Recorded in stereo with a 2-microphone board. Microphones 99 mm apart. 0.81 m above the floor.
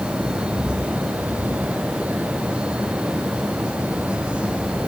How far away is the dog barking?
I don't hear a dog barking.